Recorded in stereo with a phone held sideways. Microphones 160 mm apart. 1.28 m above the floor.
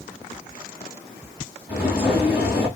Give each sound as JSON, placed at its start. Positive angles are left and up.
{"t": 1.7, "sound": "footsteps", "side_deg": -5, "distance_m": 2.5}